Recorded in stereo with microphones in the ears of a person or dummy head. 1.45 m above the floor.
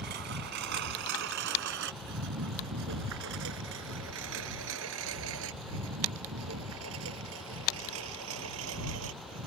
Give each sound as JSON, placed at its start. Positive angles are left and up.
{"t": 0.0, "sound": "a lawn mower", "side_deg": -55}